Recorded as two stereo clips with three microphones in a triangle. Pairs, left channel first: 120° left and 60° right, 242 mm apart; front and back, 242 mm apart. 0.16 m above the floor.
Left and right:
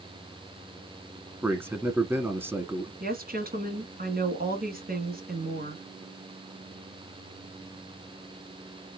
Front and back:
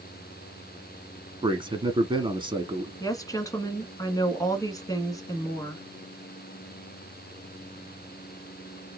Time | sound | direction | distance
1.4 | a man speaking | 130° right | 1.1 m
3.0 | a woman speaking | 70° right | 1.6 m